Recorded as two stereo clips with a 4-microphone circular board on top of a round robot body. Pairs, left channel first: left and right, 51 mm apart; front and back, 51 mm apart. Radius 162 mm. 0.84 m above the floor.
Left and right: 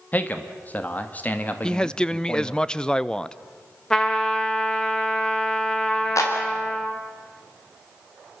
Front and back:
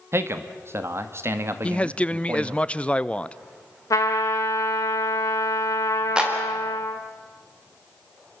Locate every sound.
0.1 s a man speaking: 150° left, 1.9 m
1.6 s a man speaking: 35° left, 0.8 m
3.9 s a trumpet: 15° left, 0.7 m
6.2 s a clap: 110° left, 4 m